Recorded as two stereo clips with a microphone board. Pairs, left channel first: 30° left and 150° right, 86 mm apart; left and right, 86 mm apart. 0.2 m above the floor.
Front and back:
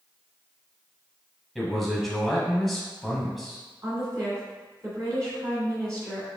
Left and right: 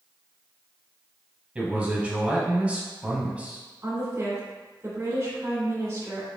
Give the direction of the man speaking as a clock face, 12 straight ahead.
2 o'clock.